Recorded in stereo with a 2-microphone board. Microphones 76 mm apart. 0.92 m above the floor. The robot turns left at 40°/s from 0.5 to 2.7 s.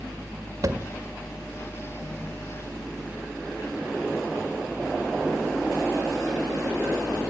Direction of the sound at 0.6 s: 50° right (ahead or behind).